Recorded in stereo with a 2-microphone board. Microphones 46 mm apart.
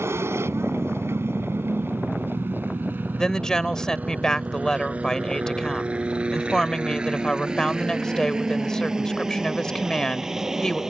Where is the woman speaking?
15° left (ahead or behind).